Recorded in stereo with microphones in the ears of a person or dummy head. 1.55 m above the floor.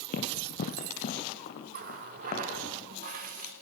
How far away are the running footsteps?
About 2.5 m.